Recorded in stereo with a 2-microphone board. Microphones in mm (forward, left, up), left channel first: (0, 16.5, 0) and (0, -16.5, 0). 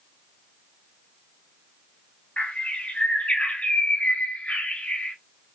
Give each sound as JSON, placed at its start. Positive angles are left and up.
{"t": 2.4, "sound": "a bird", "side_deg": 40, "distance_m": 1.5}